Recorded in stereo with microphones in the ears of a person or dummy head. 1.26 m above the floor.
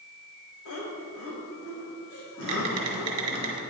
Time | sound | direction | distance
0.7 | laughter | 65° left (ahead or behind) | 2 m
2.4 | typing on a keyboard | 30° right (ahead or behind) | 1.9 m